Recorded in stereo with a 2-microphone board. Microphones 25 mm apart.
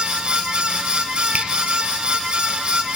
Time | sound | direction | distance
1.3 | a finger snap | 65° right (ahead or behind) | 4.5 m